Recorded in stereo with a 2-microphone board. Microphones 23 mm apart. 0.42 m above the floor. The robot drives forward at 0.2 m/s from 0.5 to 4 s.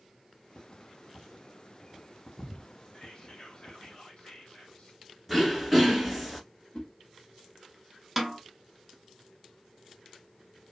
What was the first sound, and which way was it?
Whispering, 45° left (ahead or behind).